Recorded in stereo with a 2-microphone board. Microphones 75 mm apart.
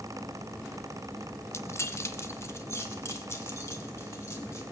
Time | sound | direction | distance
1.5 | keys jangling | 35° left (ahead or behind) | 0.8 m